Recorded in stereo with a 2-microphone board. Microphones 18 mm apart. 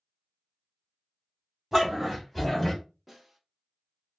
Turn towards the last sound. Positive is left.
turn(degrees=-20)  # may be behind; listen again after turning